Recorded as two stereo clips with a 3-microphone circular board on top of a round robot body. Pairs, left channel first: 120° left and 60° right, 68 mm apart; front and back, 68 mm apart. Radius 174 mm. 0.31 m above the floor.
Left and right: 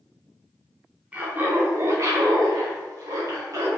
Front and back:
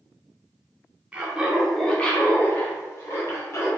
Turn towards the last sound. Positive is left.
turn(degrees=-35)